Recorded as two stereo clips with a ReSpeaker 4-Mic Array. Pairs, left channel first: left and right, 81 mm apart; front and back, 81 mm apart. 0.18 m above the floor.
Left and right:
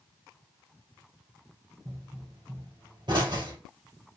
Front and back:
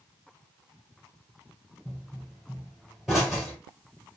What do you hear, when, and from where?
1.9 s a pop: 100° right, 2.5 m